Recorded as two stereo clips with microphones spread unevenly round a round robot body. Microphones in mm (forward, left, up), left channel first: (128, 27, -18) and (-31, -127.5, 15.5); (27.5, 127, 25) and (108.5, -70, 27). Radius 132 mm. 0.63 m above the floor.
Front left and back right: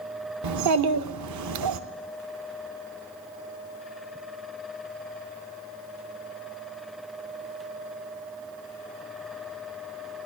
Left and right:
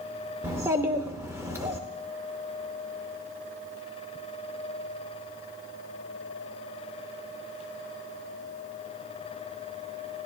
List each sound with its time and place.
0.4 s a child speaking: 150° right, 0.8 m